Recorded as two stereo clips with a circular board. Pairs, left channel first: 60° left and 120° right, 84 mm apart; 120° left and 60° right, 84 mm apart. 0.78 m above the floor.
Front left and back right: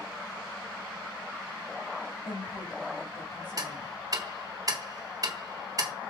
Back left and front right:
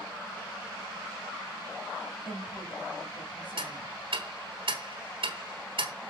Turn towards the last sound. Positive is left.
turn(degrees=-75)